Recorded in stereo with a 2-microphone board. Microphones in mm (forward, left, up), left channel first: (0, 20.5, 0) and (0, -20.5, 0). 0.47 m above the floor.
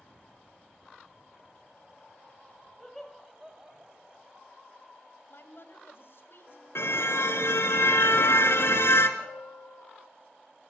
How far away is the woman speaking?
About 3 m.